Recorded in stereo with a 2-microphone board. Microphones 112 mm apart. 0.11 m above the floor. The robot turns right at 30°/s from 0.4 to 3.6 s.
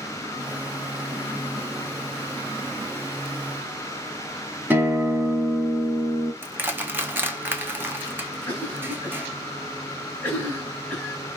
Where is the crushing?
15° right (ahead or behind), 0.6 m.